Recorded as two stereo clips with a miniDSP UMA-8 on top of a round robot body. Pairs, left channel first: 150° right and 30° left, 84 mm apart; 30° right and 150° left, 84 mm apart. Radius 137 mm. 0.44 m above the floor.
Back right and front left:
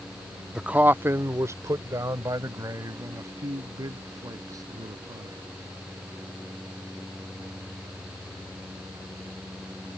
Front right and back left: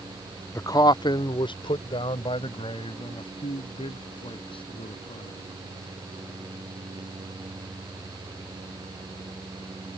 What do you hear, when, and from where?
0.6 s a man speaking: 50° right; by 5.4 s 20° right